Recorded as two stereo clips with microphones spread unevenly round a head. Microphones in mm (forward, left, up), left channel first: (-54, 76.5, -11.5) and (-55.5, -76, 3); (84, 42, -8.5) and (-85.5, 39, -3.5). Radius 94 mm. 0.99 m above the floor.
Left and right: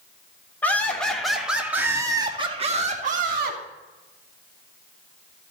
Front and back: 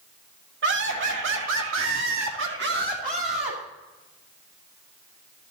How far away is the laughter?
About 3 m.